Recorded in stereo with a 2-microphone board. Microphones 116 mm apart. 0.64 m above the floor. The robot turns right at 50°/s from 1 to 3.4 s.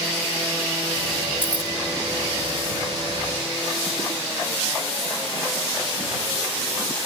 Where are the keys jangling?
50° left (ahead or behind); by 1.7 s 65° left (ahead or behind).